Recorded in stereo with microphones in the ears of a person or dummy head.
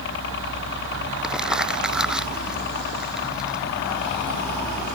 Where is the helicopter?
65° left (ahead or behind).